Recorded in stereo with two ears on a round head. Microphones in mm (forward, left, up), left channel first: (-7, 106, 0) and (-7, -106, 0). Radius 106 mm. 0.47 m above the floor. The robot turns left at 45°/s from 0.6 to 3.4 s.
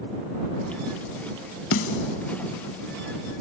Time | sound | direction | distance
1.7 | a snare drum | 60° left (ahead or behind) | ?